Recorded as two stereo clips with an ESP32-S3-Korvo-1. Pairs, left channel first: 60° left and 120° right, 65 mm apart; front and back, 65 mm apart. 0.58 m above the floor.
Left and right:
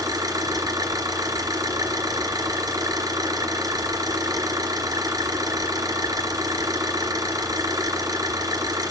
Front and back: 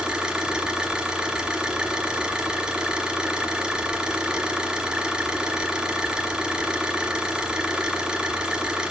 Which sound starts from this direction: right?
An engine running, at 0.0 s.